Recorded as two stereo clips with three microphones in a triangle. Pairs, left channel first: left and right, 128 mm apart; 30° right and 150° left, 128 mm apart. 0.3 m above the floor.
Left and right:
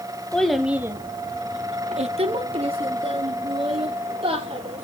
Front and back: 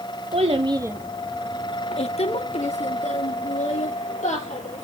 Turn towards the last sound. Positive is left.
turn(degrees=-45)